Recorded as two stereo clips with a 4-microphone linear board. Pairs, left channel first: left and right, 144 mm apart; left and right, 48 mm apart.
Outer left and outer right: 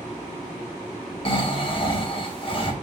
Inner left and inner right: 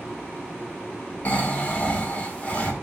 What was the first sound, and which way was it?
Snoring, 40° left (ahead or behind).